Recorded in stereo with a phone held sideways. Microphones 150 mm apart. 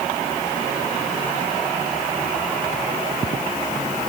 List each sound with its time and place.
Only background noise.